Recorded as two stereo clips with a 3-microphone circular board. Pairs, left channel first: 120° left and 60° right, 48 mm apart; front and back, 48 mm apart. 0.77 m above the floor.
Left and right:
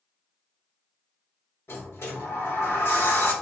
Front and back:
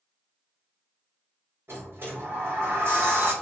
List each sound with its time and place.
1.7 s a sliding door: 145° left, 1.8 m